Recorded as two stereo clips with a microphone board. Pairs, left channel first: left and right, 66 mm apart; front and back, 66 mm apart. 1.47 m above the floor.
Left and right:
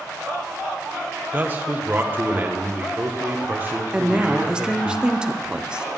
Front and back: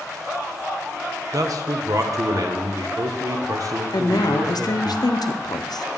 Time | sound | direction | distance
1.3 | a man speaking | 155° right | 1.0 m
3.9 | a woman speaking | 15° right | 0.6 m